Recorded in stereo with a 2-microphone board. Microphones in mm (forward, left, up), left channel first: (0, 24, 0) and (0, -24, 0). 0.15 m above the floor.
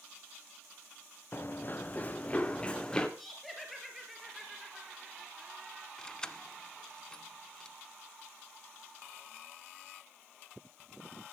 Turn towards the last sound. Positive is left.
turn(degrees=15)  # may be behind; listen again after turning